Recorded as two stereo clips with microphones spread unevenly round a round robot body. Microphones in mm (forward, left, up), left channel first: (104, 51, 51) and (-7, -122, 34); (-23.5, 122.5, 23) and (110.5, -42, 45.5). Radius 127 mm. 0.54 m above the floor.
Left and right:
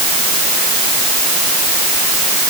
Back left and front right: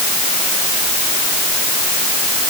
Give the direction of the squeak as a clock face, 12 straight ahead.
I don't hear a squeak.